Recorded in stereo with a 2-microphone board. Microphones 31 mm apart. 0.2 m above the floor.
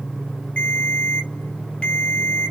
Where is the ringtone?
35° left (ahead or behind), 1.6 m.